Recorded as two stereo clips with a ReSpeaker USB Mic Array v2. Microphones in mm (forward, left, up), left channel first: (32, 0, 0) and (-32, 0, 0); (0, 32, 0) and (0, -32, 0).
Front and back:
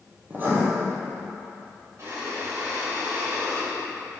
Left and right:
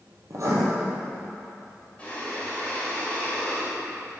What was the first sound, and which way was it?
Writing, 125° right.